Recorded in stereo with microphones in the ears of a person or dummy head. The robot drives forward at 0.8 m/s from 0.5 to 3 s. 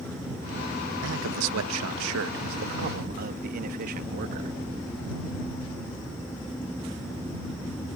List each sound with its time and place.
1.0 s a man speaking: 75° right (ahead or behind); by 4.6 s 50° right (ahead or behind)